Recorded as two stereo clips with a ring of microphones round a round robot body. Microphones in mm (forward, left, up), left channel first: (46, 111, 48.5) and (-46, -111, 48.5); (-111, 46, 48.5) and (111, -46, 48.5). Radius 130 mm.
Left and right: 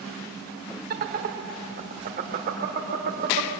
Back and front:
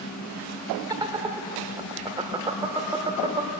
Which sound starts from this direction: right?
Laughter, at 0.9 s.